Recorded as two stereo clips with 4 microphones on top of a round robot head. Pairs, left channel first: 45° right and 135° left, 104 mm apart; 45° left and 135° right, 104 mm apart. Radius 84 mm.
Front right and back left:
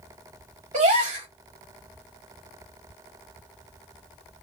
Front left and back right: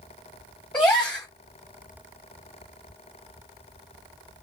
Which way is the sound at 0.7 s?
125° left.